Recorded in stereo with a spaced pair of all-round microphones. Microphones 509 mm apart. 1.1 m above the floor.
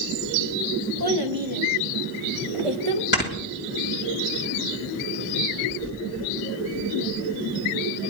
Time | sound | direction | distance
1.0 | a child speaking | 45° right (ahead or behind) | 0.8 m
3.1 | snoring | 20° left (ahead or behind) | 2.5 m